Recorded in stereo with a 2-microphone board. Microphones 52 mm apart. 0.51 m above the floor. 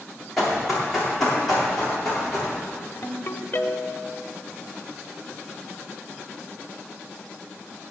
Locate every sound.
0.4 s running footsteps: 5° left (ahead or behind), 5.5 m
3.0 s a ringtone: 40° left (ahead or behind), 1.0 m